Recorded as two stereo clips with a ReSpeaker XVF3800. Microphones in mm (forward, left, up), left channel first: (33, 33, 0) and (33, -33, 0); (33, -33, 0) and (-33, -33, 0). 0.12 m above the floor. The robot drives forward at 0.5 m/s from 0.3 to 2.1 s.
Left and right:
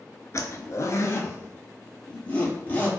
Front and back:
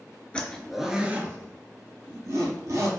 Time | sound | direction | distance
0.3 | a zipper | 65° left | 0.5 m